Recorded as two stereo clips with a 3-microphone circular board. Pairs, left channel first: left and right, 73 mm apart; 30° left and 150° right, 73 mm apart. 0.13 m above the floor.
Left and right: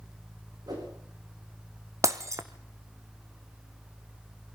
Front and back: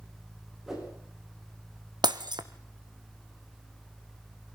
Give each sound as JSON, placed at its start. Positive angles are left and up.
{"t": 0.7, "sound": "a whoosh", "azimuth_deg": -65, "distance_m": 7.0}
{"t": 2.0, "sound": "breaking glass", "azimuth_deg": -135, "distance_m": 1.4}